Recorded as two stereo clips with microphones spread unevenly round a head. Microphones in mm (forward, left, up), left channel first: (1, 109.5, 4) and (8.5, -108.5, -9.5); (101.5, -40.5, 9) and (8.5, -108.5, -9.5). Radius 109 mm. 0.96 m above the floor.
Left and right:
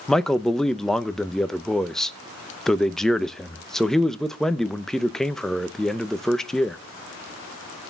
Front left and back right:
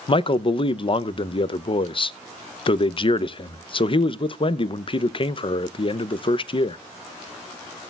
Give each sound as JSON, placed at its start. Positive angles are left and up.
{"t": 0.1, "sound": "a man speaking", "azimuth_deg": 0, "distance_m": 0.6}